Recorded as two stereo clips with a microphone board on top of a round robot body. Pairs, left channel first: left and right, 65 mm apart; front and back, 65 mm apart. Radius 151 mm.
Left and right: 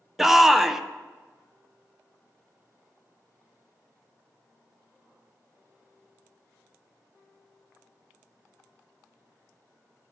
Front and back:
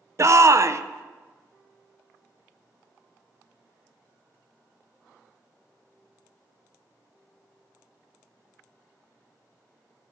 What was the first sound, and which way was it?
A shout, 175° right.